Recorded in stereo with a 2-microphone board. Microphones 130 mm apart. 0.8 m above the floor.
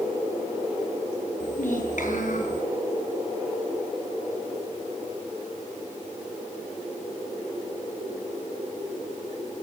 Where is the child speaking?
70° left (ahead or behind), 9 m.